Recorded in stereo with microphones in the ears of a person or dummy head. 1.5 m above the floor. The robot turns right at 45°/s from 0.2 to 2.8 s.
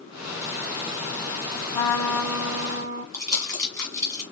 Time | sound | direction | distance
1.7 | a trumpet | 150° left | 0.8 m
3.1 | crumpling | 15° left (ahead or behind) | 1.9 m